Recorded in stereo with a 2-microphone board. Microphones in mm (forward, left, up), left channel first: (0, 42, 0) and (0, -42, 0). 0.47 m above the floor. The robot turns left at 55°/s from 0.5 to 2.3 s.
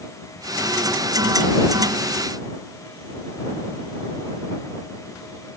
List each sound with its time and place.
Only background noise.